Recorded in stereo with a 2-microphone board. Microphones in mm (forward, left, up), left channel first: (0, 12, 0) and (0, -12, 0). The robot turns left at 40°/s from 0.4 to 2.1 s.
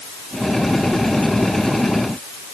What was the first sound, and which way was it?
Only background noise.